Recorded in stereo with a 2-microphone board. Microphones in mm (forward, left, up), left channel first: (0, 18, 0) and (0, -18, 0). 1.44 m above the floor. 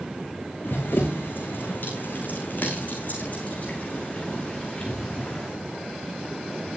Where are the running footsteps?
75° left (ahead or behind), 5.5 m; by 5.6 s 20° left (ahead or behind), 6.5 m.